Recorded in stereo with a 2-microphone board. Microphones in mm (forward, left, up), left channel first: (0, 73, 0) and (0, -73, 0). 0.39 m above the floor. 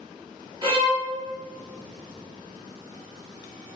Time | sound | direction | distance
0.6 | a violin | 40° right (ahead or behind) | 1.5 m